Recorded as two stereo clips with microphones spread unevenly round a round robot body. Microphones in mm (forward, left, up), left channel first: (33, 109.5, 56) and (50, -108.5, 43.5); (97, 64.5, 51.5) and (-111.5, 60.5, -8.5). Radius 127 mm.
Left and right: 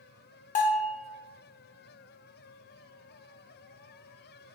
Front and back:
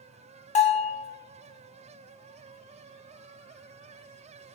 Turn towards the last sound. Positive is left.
turn(degrees=45)